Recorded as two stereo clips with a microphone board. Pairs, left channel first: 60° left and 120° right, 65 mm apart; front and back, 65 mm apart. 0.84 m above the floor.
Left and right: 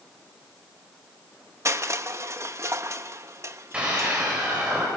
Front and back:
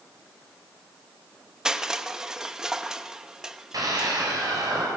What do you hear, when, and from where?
1.6 s crushing: 100° right, 1.0 m
3.7 s a scream: 165° left, 4.5 m